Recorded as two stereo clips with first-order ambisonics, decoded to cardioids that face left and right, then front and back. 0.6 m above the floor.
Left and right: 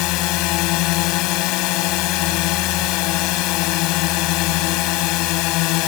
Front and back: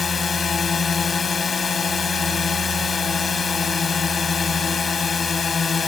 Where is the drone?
70° left.